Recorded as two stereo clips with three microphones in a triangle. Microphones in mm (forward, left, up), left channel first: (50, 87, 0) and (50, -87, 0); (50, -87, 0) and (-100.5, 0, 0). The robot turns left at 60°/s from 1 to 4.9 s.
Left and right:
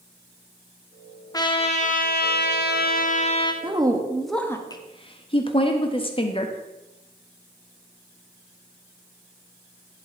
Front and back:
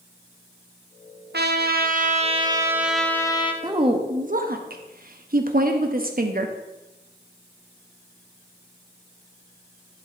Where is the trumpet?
155° left, 0.8 m; by 3.5 s 25° left, 0.8 m.